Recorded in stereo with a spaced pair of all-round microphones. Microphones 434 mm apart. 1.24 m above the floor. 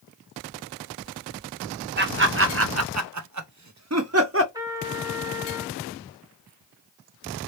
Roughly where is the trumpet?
Centre.